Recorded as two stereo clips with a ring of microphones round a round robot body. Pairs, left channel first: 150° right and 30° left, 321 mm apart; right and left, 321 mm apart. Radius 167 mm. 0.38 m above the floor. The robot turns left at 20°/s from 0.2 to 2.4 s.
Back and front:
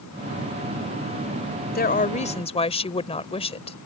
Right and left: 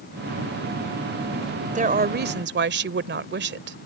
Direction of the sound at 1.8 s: 155° left.